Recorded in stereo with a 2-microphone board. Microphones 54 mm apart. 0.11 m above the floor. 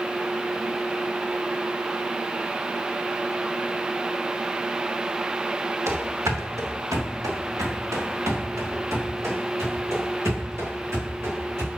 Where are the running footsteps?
60° right (ahead or behind), 1.6 m; by 11.7 s 55° right (ahead or behind), 4.5 m.